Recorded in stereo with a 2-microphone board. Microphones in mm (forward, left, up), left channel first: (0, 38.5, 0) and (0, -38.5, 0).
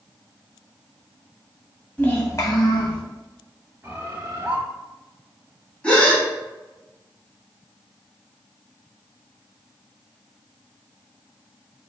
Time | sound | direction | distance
2.0 | a child speaking | 20° left (ahead or behind) | 0.8 m
3.8 | a bird | 30° right (ahead or behind) | 0.9 m
5.8 | a gasp | 15° left (ahead or behind) | 1.2 m